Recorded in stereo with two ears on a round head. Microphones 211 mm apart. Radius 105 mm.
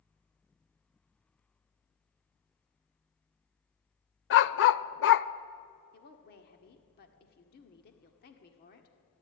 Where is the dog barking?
50° left (ahead or behind), 0.6 m.